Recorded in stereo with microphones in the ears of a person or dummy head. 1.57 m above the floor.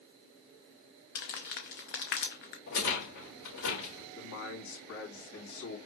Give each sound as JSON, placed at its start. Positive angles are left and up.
{"t": 1.1, "sound": "crumpling", "side_deg": 45, "distance_m": 0.6}
{"t": 2.7, "sound": "a rattle", "side_deg": 75, "distance_m": 3.0}
{"t": 4.2, "sound": "a man speaking", "side_deg": 75, "distance_m": 2.5}